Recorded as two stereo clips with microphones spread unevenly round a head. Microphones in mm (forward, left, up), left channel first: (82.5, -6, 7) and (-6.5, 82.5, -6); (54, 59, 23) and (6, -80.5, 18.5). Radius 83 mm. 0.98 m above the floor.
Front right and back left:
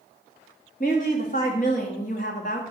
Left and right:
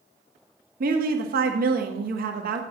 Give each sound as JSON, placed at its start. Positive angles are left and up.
{"t": 0.8, "sound": "a woman speaking", "azimuth_deg": -90, "distance_m": 1.7}